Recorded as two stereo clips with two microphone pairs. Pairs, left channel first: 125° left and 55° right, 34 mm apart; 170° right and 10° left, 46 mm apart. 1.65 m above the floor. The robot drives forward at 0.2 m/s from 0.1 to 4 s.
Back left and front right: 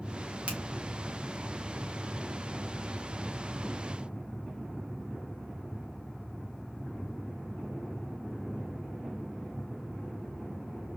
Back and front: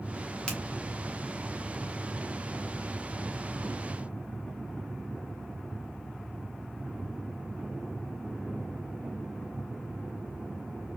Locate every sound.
0.5 s a finger snap: 100° right, 1.6 m